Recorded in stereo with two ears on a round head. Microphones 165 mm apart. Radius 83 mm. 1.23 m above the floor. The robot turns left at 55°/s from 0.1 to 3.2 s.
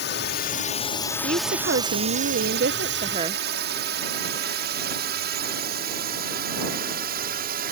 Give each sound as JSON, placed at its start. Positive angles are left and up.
{"t": 0.0, "sound": "a drone", "side_deg": 60}
{"t": 1.2, "sound": "a woman speaking", "azimuth_deg": -40}